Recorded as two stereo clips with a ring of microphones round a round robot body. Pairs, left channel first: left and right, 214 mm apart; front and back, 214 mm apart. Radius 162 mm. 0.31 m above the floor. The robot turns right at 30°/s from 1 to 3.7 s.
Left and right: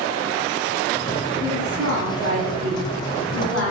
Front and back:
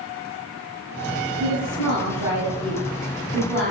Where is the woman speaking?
135° right, 3 m; by 3.7 s 70° right, 3 m.